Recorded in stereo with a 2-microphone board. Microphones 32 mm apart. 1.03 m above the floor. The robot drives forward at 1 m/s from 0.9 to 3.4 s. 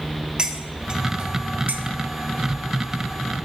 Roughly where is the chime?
No chime in this recording.